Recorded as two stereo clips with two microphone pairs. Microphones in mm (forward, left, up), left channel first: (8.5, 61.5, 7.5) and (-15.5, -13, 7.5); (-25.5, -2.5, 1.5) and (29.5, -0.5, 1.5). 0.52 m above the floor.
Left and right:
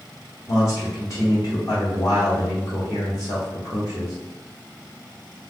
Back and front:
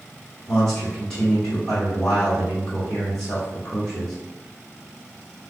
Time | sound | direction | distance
0.5 | a man speaking | 95° left | 1.9 m